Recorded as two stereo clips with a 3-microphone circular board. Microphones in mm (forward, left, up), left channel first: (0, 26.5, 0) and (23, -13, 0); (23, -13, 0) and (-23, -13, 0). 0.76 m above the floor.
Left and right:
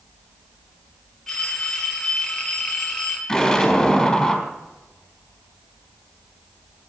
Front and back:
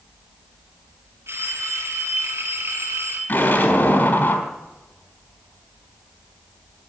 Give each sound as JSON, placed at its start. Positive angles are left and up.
{"t": 1.3, "sound": "a phone ringing", "azimuth_deg": -160, "distance_m": 5.0}
{"t": 3.3, "sound": "an explosion", "azimuth_deg": 45, "distance_m": 4.0}